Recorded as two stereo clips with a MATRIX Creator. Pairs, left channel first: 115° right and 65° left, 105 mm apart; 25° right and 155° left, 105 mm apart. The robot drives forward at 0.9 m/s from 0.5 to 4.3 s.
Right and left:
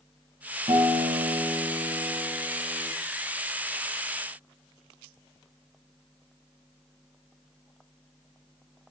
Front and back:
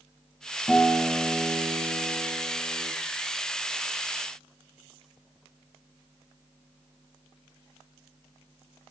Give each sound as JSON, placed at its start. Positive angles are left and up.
{"t": 0.7, "sound": "a guitar", "azimuth_deg": 60, "distance_m": 1.5}